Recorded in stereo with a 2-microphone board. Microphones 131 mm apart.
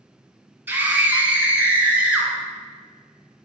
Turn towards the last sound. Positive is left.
turn(degrees=-10)  # may be behind; listen again after turning